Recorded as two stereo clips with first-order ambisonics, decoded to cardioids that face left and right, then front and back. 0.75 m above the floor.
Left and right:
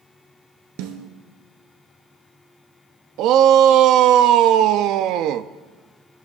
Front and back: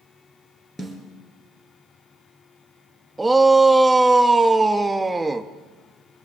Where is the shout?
100° right, 0.6 m.